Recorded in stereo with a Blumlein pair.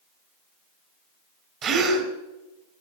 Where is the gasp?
35° right, 3 m.